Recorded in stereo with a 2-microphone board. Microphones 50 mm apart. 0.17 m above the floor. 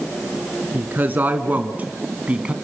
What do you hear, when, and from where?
0.7 s a woman speaking: 35° right (ahead or behind), 2 m; by 2.5 s 20° right (ahead or behind), 1.5 m